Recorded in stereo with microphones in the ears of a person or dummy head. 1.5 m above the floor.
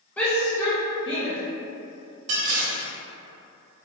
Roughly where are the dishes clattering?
Right.